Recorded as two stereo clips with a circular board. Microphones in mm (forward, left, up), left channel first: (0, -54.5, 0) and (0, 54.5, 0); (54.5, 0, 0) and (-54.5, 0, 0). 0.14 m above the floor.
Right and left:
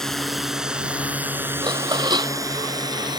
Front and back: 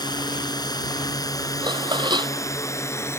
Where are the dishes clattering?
135° left.